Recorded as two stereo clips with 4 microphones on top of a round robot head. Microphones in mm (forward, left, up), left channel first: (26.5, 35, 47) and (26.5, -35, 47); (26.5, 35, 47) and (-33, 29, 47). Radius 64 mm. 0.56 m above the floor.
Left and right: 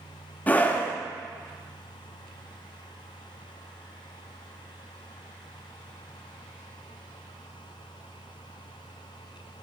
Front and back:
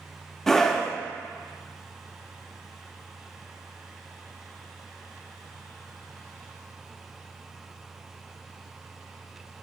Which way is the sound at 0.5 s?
80° left.